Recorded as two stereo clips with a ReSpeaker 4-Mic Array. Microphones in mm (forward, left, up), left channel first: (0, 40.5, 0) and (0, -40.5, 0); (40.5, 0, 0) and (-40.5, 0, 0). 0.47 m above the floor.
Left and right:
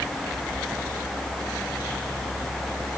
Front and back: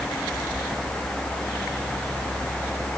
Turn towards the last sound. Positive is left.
No sound to turn to.